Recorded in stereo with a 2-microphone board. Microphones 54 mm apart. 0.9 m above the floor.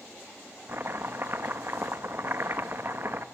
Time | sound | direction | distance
0.7 | chopping | 45° right (ahead or behind) | 1.3 m